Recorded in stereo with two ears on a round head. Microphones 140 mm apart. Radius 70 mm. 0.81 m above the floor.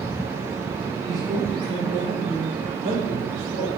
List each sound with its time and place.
1.1 s a man speaking: 25° right (ahead or behind), 3 m; by 3.7 s 75° right (ahead or behind), 3.5 m